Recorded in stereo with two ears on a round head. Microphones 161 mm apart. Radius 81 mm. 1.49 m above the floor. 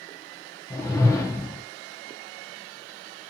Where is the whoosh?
15° left (ahead or behind), 0.6 m.